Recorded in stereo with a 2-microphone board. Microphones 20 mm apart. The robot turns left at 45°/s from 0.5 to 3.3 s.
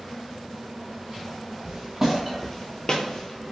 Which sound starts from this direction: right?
Footsteps, at 1.6 s.